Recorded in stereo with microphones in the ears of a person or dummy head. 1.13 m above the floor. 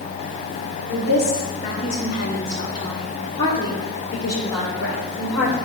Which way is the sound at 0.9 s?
65° left (ahead or behind).